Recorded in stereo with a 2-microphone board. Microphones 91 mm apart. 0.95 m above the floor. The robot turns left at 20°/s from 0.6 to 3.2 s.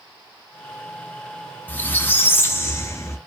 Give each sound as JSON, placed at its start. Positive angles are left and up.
{"t": 1.7, "sound": "a squeak", "side_deg": 20, "distance_m": 0.6}